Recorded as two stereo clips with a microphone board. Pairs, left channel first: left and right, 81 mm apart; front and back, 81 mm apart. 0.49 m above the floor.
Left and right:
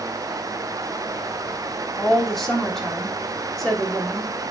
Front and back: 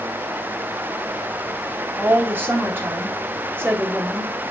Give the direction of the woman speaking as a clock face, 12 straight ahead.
6 o'clock.